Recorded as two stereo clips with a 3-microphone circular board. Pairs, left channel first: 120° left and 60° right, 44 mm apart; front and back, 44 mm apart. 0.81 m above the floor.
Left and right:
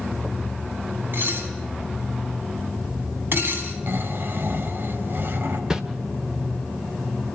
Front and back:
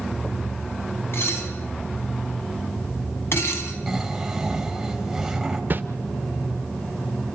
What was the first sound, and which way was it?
Dishes clattering, 25° right.